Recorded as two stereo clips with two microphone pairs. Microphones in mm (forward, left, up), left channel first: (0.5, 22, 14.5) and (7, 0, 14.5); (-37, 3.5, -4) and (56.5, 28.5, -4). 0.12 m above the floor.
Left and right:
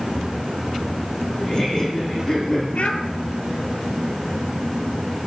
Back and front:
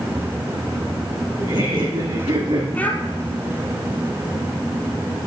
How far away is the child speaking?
About 1.6 m.